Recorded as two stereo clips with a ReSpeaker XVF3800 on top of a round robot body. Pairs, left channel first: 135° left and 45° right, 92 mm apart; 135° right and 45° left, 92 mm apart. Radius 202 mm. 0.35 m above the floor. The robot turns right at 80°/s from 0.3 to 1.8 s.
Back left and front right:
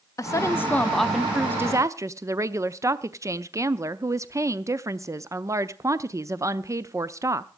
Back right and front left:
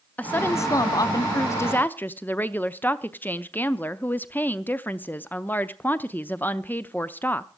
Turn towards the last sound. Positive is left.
turn(degrees=-75)